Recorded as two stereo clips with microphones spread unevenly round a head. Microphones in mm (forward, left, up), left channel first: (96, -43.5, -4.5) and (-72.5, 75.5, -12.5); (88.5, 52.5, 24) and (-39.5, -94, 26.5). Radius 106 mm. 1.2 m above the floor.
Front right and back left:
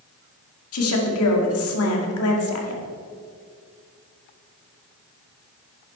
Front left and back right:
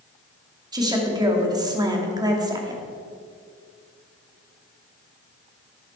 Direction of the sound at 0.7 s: 60° right.